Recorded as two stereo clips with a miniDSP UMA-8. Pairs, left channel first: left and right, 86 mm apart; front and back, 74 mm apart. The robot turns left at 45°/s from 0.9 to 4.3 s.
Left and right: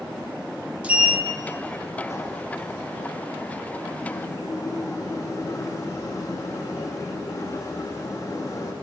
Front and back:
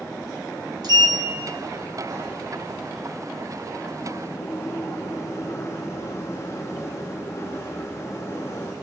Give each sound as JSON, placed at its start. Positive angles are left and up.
{"t": 0.8, "sound": "a sliding door", "azimuth_deg": -165, "distance_m": 1.4}